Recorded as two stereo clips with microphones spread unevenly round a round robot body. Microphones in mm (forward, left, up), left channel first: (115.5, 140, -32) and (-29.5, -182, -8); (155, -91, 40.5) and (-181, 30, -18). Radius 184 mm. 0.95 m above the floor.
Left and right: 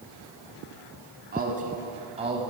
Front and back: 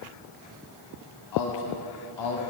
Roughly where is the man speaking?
Ahead right.